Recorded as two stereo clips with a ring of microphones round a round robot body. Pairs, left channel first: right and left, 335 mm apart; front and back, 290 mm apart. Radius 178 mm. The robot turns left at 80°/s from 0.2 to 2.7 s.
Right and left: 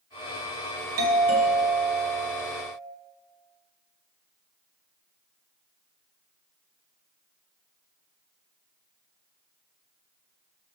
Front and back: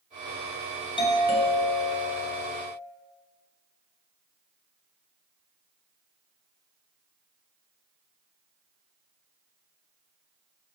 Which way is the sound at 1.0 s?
70° left.